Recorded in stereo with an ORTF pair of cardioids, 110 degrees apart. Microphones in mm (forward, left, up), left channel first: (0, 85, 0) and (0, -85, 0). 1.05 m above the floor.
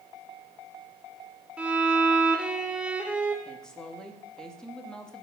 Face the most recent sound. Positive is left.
turn(degrees=5)